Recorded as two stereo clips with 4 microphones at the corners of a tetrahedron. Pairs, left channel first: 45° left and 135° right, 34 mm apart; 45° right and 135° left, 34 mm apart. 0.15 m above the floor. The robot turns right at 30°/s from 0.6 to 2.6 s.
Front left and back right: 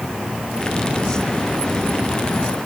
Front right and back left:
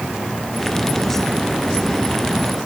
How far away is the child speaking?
No child speaking in this recording.